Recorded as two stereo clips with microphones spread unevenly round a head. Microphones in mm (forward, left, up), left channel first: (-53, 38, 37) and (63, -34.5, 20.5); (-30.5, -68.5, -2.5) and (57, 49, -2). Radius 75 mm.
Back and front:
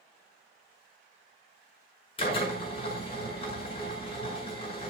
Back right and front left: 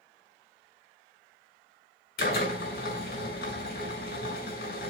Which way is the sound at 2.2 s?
160° right.